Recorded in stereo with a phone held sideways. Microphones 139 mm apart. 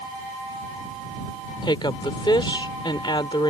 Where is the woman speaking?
35° left (ahead or behind).